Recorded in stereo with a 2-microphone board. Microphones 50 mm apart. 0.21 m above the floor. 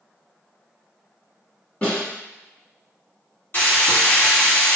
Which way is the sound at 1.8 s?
25° left (ahead or behind).